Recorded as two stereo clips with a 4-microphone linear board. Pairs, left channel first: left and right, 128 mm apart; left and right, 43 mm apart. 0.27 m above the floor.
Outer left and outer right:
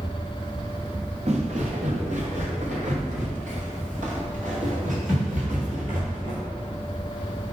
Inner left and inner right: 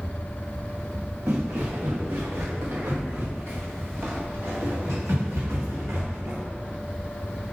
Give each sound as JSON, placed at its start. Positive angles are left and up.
{"t": 1.3, "sound": "footsteps", "side_deg": -60, "distance_m": 2.5}